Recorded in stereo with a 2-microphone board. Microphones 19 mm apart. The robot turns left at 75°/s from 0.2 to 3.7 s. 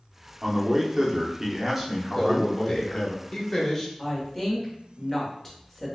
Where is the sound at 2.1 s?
10° left (ahead or behind), 0.8 m; by 3.9 s 15° left (ahead or behind), 0.8 m.